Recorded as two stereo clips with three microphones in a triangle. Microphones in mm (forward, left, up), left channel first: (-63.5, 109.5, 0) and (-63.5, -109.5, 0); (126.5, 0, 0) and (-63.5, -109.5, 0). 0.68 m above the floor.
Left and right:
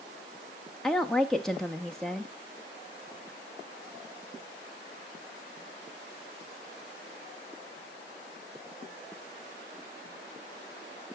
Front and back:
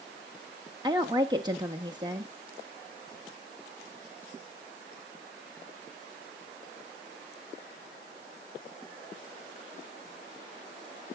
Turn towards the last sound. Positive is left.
turn(degrees=175)